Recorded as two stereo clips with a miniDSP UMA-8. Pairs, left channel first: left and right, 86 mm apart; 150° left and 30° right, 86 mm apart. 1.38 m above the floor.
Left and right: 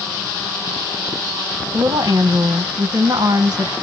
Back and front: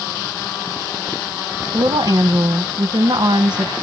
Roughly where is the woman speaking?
Ahead right.